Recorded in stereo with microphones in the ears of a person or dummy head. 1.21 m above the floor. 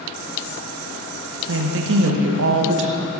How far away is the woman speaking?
About 1.0 m.